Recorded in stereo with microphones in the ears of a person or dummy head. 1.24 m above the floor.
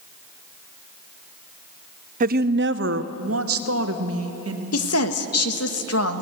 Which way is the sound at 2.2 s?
40° right (ahead or behind).